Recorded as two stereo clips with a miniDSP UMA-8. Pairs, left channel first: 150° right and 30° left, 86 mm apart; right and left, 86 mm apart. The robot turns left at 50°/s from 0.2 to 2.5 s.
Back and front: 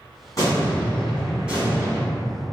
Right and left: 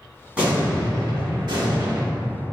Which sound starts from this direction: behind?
An explosion, at 0.4 s.